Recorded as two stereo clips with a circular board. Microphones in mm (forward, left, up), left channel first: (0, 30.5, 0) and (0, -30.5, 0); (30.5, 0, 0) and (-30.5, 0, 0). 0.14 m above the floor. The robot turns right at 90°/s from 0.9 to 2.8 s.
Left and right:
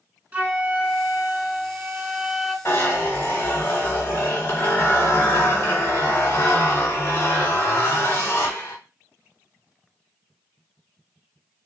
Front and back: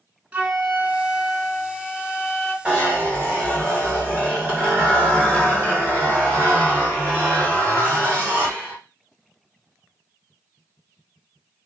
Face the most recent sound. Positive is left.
turn(degrees=125)